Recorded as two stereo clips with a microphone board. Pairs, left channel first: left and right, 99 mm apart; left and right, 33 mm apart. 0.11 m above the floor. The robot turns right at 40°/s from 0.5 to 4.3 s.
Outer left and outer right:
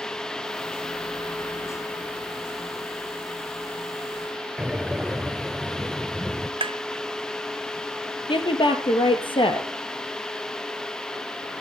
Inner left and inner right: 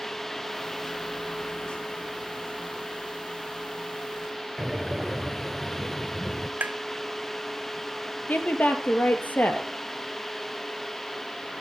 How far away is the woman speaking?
About 2.5 m.